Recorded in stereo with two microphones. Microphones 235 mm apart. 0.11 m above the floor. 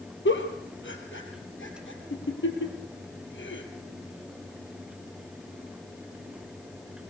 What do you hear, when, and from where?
0.2 s a giggle: 55° left (ahead or behind), 2.5 m